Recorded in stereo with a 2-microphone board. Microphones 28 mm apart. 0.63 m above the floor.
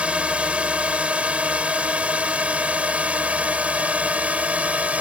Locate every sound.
0.0 s a drone: 50° right (ahead or behind); by 5.0 s 60° right (ahead or behind)